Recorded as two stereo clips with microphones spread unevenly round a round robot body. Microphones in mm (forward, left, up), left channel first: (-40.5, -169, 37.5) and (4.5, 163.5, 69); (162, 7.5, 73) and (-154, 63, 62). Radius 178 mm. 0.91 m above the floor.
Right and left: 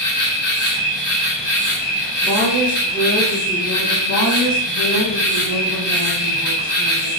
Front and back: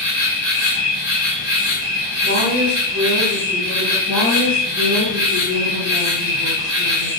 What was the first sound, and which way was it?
An insect, 145° right.